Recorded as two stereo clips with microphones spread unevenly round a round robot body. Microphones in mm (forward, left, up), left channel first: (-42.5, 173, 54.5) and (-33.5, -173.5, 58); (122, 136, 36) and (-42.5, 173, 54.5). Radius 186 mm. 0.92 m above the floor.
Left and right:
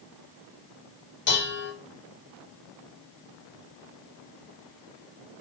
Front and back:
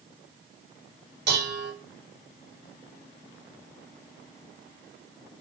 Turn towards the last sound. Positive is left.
turn(degrees=155)